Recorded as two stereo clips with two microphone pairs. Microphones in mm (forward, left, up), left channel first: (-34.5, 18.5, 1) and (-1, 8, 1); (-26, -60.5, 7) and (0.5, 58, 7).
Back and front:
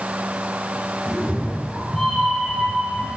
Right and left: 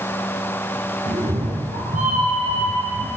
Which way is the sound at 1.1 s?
80° left.